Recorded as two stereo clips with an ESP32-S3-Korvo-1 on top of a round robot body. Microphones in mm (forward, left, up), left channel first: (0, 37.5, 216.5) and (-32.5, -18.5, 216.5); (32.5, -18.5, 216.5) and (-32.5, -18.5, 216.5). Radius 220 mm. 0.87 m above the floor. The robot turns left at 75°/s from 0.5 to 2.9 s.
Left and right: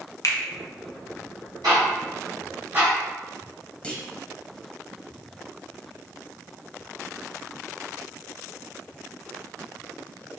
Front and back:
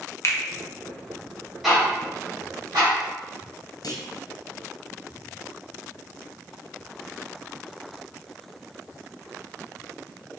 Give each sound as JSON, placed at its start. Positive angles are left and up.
{"t": 0.2, "sound": "a finger snap", "azimuth_deg": 35, "distance_m": 0.8}
{"t": 1.6, "sound": "ticking", "azimuth_deg": -95, "distance_m": 2.0}
{"t": 3.8, "sound": "a clunk", "azimuth_deg": -15, "distance_m": 1.0}